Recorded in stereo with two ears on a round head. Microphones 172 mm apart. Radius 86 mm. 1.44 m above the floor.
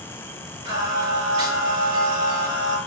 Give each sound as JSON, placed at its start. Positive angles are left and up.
{"t": 0.7, "sound": "singing", "side_deg": -80, "distance_m": 2.5}